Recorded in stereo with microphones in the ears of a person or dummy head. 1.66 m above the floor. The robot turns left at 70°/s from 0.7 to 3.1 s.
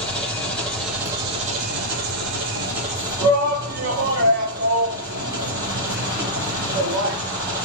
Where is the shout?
55° right (ahead or behind), 1.2 m.